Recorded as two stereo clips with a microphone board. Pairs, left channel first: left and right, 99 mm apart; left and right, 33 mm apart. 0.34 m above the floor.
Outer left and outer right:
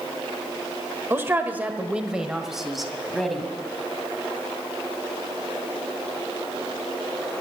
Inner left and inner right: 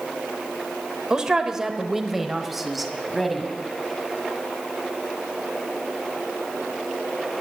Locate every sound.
1.1 s a man speaking: 25° right (ahead or behind), 0.9 m; by 3.5 s centre (ahead or behind), 1.8 m